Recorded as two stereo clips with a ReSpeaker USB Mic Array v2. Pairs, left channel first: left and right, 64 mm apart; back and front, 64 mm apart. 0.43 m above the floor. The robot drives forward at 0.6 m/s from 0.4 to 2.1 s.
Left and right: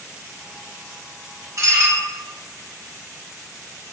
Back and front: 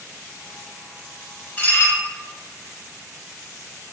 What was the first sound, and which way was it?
Dishes clattering, 125° right.